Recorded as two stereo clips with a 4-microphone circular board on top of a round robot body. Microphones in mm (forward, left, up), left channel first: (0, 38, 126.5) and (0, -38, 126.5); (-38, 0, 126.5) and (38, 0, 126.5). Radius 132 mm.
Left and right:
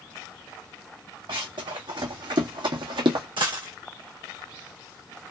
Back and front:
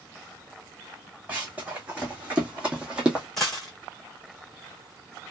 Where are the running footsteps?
75° right, 2 m; by 3.2 s 80° right, 1.1 m.